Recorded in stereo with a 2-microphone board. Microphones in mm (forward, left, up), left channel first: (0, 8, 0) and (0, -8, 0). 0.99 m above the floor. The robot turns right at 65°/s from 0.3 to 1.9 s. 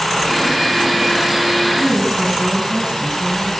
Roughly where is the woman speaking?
Right.